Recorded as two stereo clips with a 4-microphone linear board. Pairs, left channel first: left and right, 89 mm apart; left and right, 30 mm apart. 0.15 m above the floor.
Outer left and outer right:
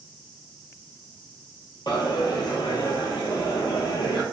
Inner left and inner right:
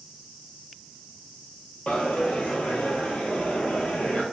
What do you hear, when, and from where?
1.9 s a dropped coin: 55° left (ahead or behind), 0.7 m